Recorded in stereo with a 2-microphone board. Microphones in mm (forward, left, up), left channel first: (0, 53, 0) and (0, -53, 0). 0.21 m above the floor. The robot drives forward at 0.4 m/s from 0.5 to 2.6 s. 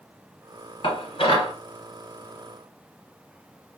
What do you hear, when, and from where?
0.8 s dishes clattering: 55° left (ahead or behind), 1.6 m; by 1.5 s 60° left (ahead or behind), 1.5 m